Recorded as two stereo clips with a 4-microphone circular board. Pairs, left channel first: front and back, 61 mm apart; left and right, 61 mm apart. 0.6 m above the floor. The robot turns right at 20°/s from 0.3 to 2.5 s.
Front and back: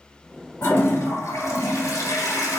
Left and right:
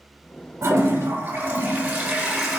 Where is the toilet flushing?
50° right, 1.3 m; by 2.6 s 15° right, 1.3 m.